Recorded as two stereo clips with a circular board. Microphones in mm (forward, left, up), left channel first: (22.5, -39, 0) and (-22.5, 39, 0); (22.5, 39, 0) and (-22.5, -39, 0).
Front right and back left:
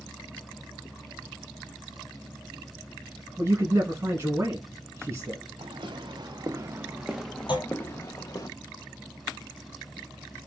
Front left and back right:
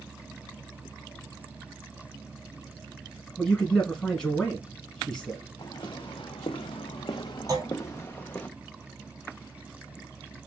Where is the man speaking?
130° left, 1.2 m.